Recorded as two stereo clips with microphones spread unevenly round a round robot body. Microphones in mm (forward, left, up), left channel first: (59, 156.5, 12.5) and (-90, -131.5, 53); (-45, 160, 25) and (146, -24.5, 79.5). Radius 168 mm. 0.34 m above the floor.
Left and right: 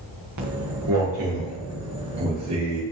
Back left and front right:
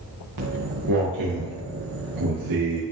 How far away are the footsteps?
About 3 m.